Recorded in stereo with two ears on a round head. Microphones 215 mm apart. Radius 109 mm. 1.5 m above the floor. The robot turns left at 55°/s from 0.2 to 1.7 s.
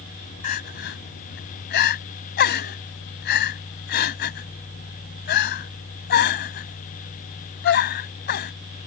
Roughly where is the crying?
Left.